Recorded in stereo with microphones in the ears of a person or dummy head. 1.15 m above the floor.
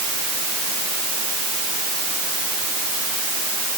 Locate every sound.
Only background noise.